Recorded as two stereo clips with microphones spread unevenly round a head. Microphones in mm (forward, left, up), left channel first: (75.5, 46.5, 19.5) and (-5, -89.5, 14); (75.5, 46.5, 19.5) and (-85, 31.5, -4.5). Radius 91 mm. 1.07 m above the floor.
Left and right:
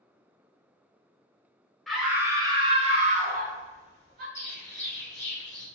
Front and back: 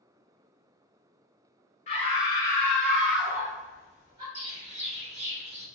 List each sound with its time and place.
1.9 s a scream: 30° right, 0.7 m; by 4.2 s 110° right, 1.4 m
4.3 s a bird: 135° left, 1.1 m